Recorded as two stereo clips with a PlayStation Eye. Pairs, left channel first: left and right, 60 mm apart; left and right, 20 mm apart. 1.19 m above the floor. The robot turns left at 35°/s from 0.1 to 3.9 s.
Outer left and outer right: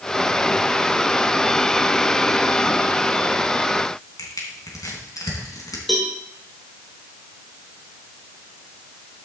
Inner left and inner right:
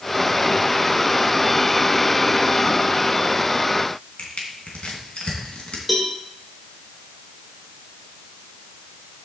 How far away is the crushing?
About 3 m.